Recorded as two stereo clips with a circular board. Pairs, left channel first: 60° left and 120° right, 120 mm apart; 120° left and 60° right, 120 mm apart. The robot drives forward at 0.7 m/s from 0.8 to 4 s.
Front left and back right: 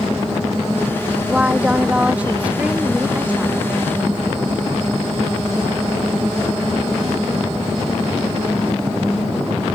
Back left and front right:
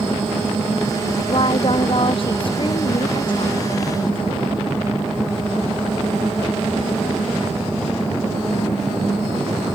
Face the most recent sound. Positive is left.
turn(degrees=165)